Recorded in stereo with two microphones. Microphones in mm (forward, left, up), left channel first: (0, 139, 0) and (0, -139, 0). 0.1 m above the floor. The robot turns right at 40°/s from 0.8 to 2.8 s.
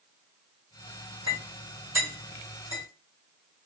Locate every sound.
1.3 s a clink: 70° left (ahead or behind), 1.9 m; by 2.8 s 30° left (ahead or behind), 1.9 m